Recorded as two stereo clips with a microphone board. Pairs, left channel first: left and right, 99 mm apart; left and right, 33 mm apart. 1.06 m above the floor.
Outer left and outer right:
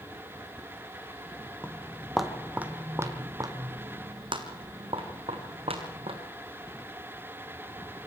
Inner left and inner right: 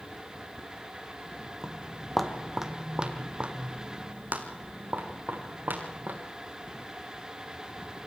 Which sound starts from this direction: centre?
Footsteps, at 1.6 s.